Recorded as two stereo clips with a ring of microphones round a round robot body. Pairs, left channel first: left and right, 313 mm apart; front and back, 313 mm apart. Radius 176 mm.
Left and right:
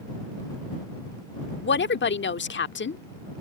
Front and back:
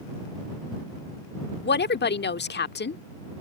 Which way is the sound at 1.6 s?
45° left.